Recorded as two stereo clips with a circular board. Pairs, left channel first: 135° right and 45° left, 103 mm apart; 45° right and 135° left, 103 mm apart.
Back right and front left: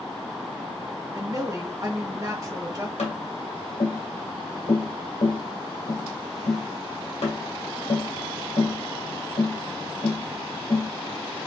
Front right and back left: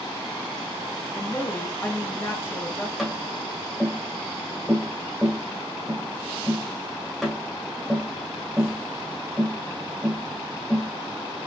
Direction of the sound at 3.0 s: 135° right.